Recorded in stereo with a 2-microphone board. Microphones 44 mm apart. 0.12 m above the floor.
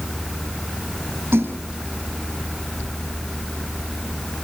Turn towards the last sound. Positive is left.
turn(degrees=-65)  # may be behind; listen again after turning